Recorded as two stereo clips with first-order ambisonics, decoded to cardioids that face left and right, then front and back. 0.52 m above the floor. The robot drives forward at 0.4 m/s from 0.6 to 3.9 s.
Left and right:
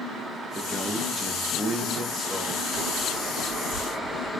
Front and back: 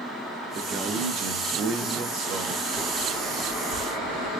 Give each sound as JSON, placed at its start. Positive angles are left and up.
{"t": 0.6, "sound": "a man speaking", "azimuth_deg": -175, "distance_m": 0.8}
{"t": 2.7, "sound": "a bird", "azimuth_deg": -140, "distance_m": 3.0}